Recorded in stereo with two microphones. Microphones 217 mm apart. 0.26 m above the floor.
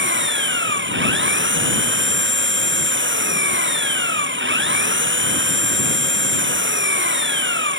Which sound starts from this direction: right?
An engine running, at 0.0 s.